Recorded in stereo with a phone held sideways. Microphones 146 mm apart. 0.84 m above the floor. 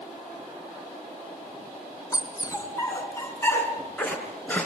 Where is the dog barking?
25° left (ahead or behind), 3 m; by 4.7 s 10° left (ahead or behind), 4 m.